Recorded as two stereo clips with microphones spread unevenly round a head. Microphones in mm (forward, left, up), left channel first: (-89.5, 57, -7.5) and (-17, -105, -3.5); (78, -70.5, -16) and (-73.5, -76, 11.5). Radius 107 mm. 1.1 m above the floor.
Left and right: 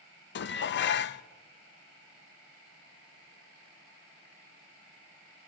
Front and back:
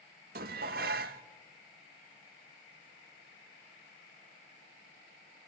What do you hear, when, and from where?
0.3 s dishes clattering: 140° left, 0.5 m